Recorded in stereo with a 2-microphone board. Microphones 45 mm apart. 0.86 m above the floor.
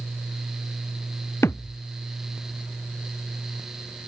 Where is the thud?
75° left (ahead or behind).